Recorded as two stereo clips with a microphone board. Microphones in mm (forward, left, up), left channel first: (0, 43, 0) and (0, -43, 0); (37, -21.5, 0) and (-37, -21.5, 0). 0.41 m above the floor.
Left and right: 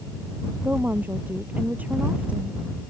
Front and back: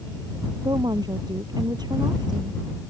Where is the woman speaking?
160° right; by 2.6 s 165° right.